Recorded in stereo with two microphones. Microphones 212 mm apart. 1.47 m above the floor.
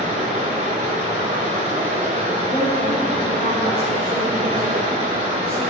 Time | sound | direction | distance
0.0 | running water | 35° right (ahead or behind) | 1.9 m
2.5 | a woman speaking | 20° left (ahead or behind) | 3 m